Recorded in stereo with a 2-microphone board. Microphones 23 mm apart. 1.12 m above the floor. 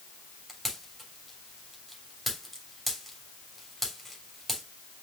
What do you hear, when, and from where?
0.5 s a pop: centre (ahead or behind), 3.5 m